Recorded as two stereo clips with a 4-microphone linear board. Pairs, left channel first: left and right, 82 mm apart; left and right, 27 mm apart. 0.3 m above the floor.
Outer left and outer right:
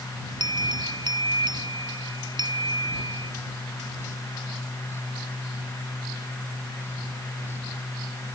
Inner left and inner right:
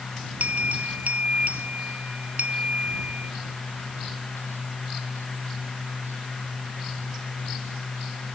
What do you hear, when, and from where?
0.4 s a bell: 65° right (ahead or behind)